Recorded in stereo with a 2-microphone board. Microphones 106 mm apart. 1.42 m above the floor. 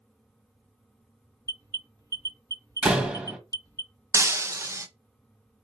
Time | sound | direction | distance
1.5 | an alarm | 35° right (ahead or behind) | 1.1 m
2.8 | a door slam | 10° right (ahead or behind) | 1.3 m
4.1 | breaking glass | 25° right (ahead or behind) | 0.6 m